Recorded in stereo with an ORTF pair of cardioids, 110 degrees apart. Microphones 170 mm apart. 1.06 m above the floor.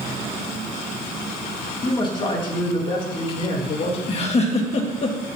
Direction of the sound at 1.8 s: 25° left.